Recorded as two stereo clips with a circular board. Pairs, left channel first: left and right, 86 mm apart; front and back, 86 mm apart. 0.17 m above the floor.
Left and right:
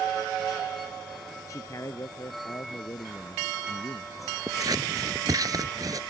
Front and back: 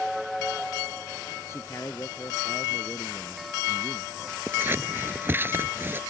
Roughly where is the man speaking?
Ahead left.